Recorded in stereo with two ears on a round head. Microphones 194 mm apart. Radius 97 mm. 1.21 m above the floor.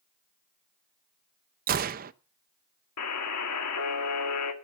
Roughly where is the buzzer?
Left.